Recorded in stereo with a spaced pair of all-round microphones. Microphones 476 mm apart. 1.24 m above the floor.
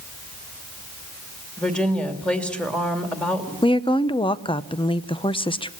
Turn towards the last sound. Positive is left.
turn(degrees=10)  # may be behind; listen again after turning